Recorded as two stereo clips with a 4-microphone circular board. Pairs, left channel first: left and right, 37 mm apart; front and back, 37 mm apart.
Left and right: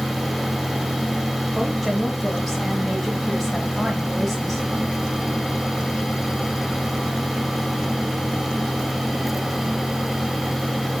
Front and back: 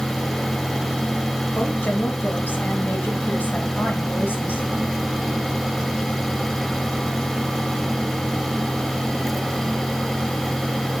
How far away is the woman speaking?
About 1.4 m.